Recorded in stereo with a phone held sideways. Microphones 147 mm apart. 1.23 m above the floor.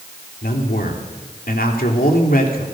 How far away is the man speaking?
About 3 m.